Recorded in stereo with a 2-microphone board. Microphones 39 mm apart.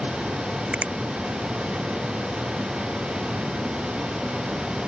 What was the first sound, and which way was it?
A finger snap, 35° right (ahead or behind).